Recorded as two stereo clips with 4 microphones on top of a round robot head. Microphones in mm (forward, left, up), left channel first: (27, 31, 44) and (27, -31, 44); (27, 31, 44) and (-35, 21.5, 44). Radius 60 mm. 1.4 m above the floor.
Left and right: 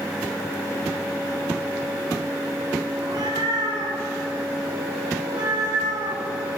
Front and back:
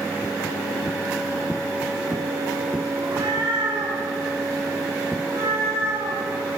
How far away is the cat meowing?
About 7.5 m.